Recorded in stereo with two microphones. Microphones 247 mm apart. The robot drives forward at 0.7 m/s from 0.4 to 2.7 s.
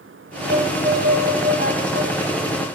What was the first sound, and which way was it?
A violin, 55° right (ahead or behind).